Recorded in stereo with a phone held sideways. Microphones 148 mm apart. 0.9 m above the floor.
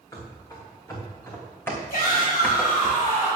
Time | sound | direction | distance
0.1 | running footsteps | 20° left (ahead or behind) | 3.5 m
1.9 | a shout | 75° left (ahead or behind) | 5 m